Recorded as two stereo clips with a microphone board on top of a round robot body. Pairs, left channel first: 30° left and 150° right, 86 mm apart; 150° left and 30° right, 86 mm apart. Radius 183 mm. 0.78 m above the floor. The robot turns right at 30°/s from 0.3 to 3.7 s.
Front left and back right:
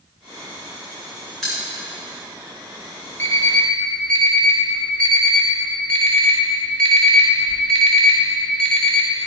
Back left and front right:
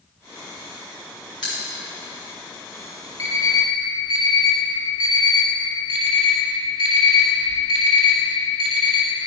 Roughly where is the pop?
Behind left.